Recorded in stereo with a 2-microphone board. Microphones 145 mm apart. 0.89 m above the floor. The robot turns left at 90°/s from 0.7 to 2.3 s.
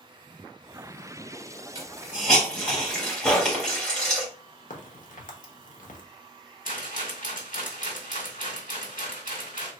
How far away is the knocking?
About 0.8 m.